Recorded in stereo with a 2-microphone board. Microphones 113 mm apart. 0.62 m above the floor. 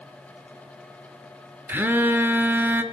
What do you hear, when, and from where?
1.7 s a phone buzzing: 20° right (ahead or behind), 0.6 m